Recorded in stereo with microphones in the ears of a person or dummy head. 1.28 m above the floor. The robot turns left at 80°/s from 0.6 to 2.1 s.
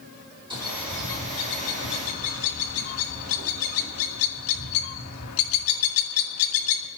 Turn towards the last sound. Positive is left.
turn(degrees=80)